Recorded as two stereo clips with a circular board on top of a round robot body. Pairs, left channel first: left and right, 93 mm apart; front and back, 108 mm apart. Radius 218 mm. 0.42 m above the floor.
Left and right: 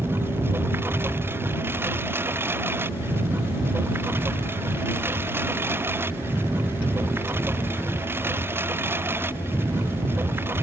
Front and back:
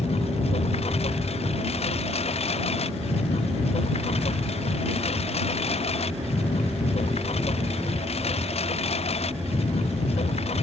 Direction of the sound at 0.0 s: 25° right.